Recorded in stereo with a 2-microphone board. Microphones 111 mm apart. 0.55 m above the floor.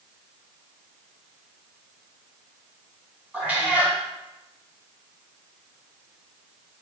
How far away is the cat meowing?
About 1.5 m.